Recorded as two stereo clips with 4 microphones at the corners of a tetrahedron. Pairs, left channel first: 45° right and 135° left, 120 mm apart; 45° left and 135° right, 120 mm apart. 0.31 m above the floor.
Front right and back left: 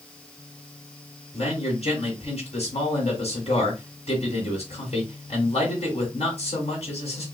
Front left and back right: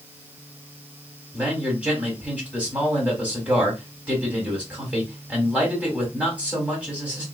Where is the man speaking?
60° right, 2 m.